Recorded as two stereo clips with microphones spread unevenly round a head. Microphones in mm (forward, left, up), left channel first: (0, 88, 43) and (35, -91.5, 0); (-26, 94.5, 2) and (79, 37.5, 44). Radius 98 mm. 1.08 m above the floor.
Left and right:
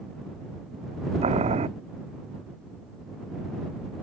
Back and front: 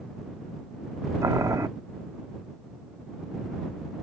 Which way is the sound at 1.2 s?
20° right.